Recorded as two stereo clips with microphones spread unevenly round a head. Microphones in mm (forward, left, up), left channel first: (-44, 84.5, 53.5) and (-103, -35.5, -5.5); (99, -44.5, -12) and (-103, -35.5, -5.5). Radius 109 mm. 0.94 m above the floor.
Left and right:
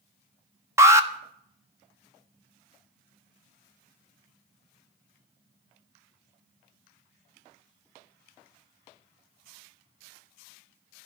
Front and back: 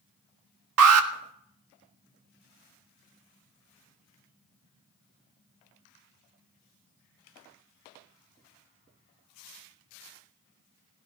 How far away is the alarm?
About 1.6 m.